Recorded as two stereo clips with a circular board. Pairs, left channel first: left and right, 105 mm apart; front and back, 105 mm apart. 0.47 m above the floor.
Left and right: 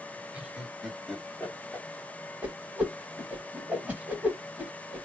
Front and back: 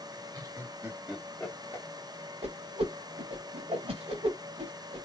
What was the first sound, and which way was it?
Laughter, 165° right.